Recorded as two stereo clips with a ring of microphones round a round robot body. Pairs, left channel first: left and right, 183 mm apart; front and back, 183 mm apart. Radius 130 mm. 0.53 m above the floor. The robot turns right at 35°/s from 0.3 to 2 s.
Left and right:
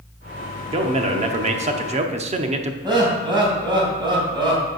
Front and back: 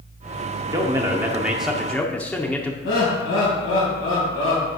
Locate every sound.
0.7 s a man speaking: 125° right, 0.8 m; by 2.7 s 80° right, 0.8 m
2.8 s laughter: 25° right, 3 m